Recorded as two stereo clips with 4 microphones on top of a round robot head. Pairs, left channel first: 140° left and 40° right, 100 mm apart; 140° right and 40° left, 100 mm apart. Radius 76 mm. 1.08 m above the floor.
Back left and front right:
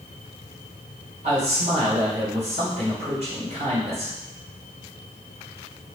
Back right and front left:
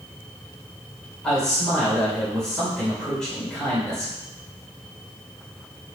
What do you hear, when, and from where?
1.2 s a man speaking: 55° right, 4 m